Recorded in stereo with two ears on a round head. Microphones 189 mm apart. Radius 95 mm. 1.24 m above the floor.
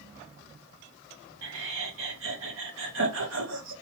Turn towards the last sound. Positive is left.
turn(degrees=-65)  # may be behind; listen again after turning